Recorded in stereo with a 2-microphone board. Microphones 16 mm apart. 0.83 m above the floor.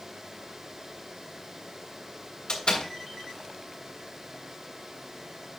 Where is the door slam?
70° left (ahead or behind), 3 m.